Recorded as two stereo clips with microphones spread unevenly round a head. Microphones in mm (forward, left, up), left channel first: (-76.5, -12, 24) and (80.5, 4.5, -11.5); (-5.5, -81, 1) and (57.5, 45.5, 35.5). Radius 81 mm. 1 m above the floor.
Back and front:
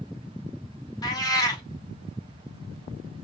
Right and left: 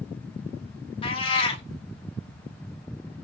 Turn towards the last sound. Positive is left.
turn(degrees=-175)